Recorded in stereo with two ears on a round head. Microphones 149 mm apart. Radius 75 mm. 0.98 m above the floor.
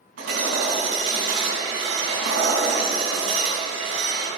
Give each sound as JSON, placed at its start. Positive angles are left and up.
{"t": 0.2, "sound": "hammering", "side_deg": -85, "distance_m": 4.5}